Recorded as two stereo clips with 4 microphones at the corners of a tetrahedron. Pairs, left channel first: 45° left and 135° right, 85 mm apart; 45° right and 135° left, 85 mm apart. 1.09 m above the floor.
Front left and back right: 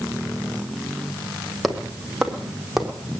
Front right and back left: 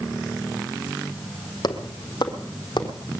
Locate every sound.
1.6 s footsteps: 45° right, 1.8 m; by 3.0 s 50° right, 2.5 m